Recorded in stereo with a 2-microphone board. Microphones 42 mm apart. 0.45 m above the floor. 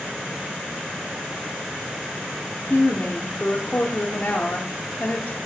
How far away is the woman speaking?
About 0.9 m.